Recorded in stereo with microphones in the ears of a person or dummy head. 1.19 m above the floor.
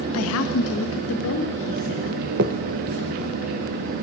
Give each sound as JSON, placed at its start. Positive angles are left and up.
{"t": 0.1, "sound": "a woman speaking", "side_deg": 80, "distance_m": 0.7}
{"t": 2.4, "sound": "a finger snap", "side_deg": -45, "distance_m": 0.5}